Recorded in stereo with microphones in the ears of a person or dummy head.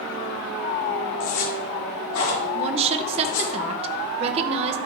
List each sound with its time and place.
1.2 s a zipper: 80° left, 3 m
2.5 s a woman speaking: 30° right (ahead or behind), 0.8 m